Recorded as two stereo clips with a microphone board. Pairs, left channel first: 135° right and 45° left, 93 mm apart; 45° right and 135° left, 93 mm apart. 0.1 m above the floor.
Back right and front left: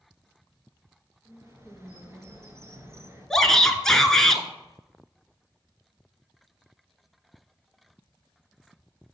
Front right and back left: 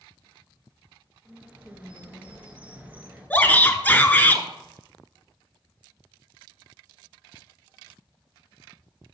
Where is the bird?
75° left, 1.6 m.